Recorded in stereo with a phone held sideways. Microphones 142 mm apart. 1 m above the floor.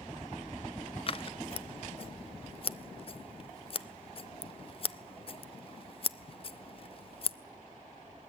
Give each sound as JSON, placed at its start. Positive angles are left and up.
{"t": 1.1, "sound": "scissors", "side_deg": 40, "distance_m": 0.5}